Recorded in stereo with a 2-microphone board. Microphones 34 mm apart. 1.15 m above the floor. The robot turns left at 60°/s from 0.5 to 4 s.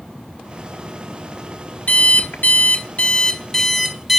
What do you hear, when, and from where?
1.9 s an alarm clock: 115° left, 1.0 m; by 4.2 s 15° right, 1.0 m